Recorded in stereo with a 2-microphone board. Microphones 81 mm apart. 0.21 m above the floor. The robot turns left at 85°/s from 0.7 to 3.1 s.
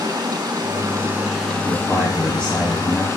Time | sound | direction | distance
0.0 | running water | 120° right | 0.8 m
1.6 | a man speaking | 10° right (ahead or behind) | 1.1 m